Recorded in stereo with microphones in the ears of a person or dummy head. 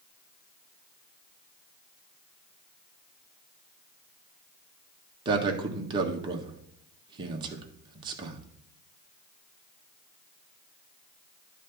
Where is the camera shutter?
I don't hear a camera shutter.